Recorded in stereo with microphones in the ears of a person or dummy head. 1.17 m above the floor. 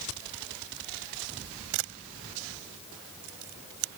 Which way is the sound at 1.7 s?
70° right (ahead or behind).